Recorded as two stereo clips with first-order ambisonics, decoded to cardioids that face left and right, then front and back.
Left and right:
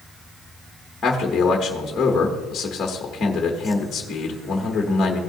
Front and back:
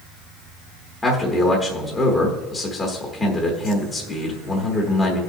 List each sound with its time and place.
1.0 s a man speaking: 40° left, 1.2 m